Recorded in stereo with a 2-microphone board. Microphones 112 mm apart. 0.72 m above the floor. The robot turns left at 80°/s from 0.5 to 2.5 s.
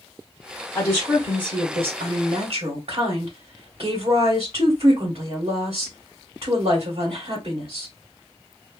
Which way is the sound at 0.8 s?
15° left.